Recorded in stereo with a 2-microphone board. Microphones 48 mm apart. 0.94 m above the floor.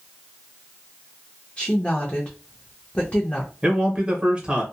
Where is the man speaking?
25° right (ahead or behind), 1.0 m.